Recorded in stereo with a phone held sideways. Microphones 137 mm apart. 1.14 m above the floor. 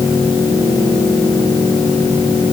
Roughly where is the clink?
I don't hear a clink.